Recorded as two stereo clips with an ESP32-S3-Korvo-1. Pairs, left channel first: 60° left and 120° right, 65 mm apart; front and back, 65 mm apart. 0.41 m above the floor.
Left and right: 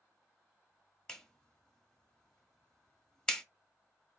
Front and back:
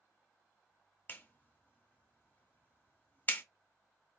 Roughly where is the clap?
Ahead.